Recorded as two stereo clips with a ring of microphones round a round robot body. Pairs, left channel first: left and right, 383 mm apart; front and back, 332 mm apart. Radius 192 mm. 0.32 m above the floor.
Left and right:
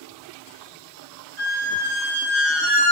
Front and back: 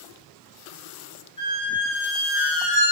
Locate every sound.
1.4 s a squeak: 75° right, 1.8 m